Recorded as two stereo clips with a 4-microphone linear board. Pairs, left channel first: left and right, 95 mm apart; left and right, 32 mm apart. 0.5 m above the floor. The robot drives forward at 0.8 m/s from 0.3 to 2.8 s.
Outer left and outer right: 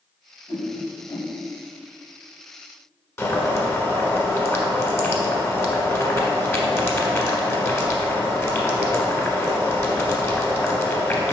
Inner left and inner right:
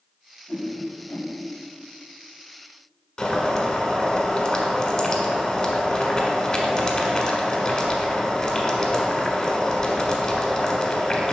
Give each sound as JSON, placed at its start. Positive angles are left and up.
{"t": 0.5, "sound": "a whoosh", "side_deg": 35, "distance_m": 1.5}
{"t": 3.2, "sound": "boiling", "side_deg": 30, "distance_m": 1.3}